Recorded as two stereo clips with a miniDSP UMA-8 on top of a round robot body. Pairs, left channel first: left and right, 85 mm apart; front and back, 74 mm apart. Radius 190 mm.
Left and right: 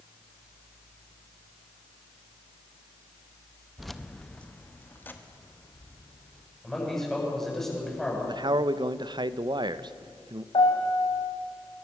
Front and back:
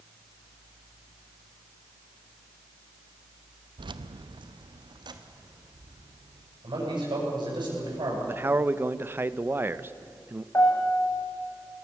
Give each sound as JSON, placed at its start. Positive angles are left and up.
{"t": 3.8, "sound": "keys jangling", "azimuth_deg": 180, "distance_m": 0.8}
{"t": 6.6, "sound": "a man speaking", "azimuth_deg": 175, "distance_m": 8.5}
{"t": 8.2, "sound": "a man speaking", "azimuth_deg": -120, "distance_m": 0.9}
{"t": 10.5, "sound": "a piano", "azimuth_deg": 60, "distance_m": 3.0}